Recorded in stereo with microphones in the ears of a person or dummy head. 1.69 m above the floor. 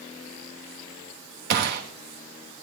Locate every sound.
1.5 s a gunshot: 55° right (ahead or behind), 2.5 m